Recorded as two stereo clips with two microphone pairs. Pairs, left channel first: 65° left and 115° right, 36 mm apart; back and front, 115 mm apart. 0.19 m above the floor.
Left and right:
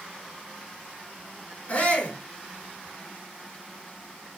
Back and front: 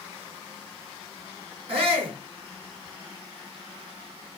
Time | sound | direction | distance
1.7 | a shout | 20° left | 3 m